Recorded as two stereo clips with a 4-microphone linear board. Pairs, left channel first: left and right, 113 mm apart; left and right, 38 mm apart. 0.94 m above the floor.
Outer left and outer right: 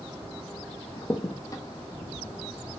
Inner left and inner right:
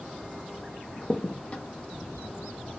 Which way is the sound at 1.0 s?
30° left (ahead or behind).